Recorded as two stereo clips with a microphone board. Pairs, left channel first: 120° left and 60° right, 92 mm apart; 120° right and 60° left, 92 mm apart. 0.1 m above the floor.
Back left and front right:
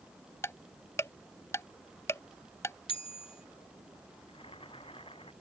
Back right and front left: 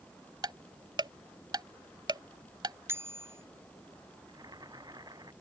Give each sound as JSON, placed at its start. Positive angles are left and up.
{"t": 0.4, "sound": "ticking", "azimuth_deg": 70}
{"t": 2.9, "sound": "a bicycle bell", "azimuth_deg": 125}
{"t": 4.3, "sound": "boiling", "azimuth_deg": 105}